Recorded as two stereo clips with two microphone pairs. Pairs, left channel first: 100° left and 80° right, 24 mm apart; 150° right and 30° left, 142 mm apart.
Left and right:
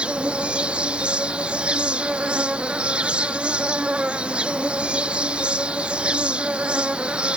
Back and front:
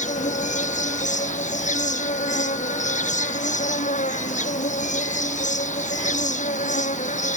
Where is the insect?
120° right.